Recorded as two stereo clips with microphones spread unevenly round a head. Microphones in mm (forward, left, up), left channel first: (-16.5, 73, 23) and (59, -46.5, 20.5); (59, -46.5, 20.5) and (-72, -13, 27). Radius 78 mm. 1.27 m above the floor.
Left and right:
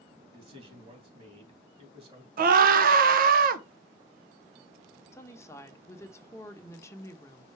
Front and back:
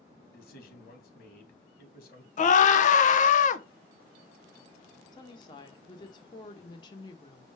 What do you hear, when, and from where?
0.3 s a man speaking: 10° right, 2.5 m
2.4 s a scream: 40° right, 0.9 m
5.1 s a woman speaking: 50° left, 1.0 m